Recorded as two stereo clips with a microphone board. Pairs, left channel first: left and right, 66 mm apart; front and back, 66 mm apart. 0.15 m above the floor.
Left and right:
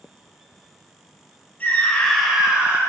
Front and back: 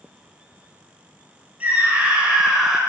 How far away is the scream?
About 1.6 m.